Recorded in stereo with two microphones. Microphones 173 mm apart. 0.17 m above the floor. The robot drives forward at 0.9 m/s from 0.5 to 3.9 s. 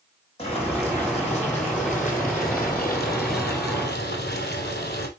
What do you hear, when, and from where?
0.4 s boiling: 35° left (ahead or behind), 4 m; by 5.1 s 75° left (ahead or behind), 2.5 m